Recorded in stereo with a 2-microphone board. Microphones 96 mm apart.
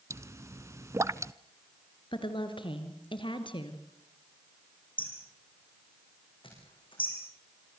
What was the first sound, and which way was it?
A pop, 30° right (ahead or behind).